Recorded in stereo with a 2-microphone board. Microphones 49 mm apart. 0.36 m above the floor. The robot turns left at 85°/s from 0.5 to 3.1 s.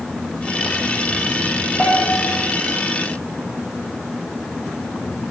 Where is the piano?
165° left, 2.0 m; by 2.4 s 120° left, 2.0 m.